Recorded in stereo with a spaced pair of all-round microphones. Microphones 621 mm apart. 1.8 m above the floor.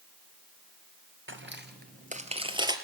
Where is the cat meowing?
No cat meowing in this recording.